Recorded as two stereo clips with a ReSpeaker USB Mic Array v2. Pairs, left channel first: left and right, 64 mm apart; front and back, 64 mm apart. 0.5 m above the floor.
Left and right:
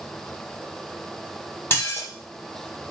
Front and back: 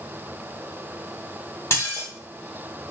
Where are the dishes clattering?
45° left, 1.2 m.